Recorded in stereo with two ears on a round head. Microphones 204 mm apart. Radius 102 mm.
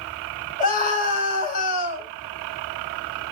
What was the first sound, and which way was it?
A scream, 35° left (ahead or behind).